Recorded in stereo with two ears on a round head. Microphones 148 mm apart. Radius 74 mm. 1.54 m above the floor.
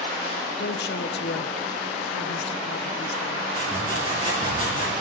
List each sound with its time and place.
0.6 s a woman speaking: 60° left (ahead or behind), 0.8 m
3.5 s sawing: 35° right (ahead or behind), 9 m